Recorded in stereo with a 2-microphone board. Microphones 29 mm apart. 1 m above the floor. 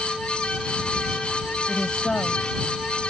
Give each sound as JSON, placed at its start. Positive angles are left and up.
{"t": 1.7, "sound": "a woman speaking", "side_deg": 35}